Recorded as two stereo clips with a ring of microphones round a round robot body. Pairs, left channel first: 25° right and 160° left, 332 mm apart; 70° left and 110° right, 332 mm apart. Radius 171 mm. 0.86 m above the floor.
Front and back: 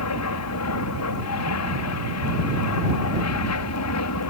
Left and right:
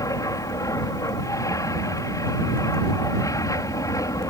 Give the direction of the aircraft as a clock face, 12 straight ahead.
12 o'clock.